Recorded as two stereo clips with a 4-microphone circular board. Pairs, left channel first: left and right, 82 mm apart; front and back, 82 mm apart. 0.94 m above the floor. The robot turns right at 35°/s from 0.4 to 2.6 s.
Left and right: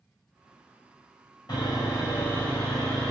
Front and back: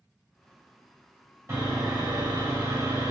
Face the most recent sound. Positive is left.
turn(degrees=160)